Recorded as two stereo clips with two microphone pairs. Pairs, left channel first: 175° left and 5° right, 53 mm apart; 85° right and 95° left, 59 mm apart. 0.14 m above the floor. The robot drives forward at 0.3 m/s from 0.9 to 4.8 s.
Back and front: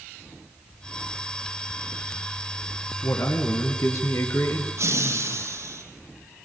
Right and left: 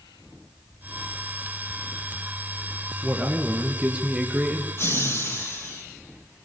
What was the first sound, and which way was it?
A man speaking, 170° left.